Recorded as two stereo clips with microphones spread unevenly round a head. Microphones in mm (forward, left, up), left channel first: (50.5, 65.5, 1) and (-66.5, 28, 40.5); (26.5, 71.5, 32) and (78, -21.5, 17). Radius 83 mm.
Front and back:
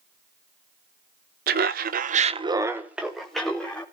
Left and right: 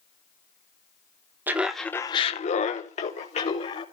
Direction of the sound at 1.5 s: 135° right.